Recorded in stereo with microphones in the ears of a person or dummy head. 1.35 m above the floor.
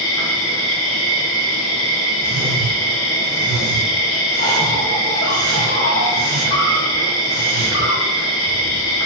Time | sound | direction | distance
0.0 | an insect | 70° left (ahead or behind) | 1.1 m
2.2 | a whoosh | 70° right (ahead or behind) | 2 m